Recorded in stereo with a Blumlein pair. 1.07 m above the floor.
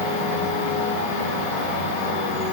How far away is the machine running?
About 1.1 m.